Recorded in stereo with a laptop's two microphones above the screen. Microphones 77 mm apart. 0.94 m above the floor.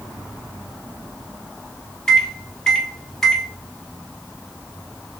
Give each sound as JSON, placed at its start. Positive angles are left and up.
{"t": 2.1, "sound": "a microwave", "side_deg": 10, "distance_m": 0.6}